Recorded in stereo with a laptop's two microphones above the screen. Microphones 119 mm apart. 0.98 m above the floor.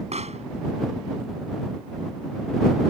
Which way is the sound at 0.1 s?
65° right (ahead or behind).